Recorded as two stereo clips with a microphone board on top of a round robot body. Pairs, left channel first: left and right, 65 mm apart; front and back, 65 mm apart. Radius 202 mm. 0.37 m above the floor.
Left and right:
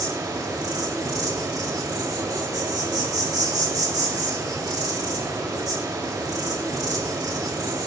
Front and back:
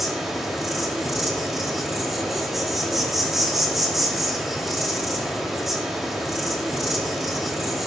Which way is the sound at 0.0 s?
95° right.